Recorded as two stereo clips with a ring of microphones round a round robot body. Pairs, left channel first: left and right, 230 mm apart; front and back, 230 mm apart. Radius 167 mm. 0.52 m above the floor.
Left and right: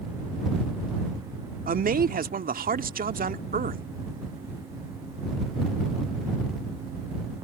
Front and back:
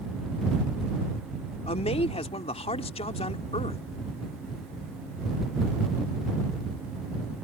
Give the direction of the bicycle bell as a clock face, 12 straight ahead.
I don't hear a bicycle bell.